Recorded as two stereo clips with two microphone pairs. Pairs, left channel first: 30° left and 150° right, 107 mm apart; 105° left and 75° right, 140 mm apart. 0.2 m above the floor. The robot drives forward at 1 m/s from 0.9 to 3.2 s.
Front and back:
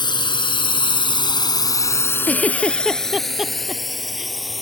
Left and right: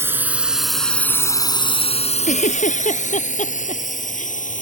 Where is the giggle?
105° left; by 4.3 s 125° left.